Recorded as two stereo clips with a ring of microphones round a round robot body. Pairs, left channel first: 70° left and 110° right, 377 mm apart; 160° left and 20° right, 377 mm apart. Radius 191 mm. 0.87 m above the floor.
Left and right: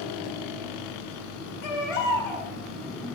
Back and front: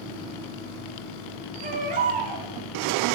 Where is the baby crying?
50° left, 1.9 m.